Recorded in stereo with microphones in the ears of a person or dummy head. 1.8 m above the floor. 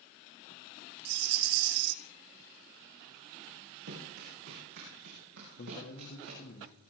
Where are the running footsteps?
70° right (ahead or behind), 8.5 m; by 6.6 s 75° right (ahead or behind), 11.5 m.